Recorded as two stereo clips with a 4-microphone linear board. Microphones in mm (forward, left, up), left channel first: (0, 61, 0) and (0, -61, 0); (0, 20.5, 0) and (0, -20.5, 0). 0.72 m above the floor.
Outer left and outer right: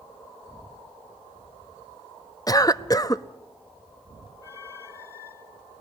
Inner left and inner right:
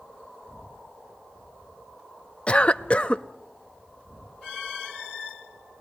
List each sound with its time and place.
2.5 s a cough: 30° left (ahead or behind), 0.7 m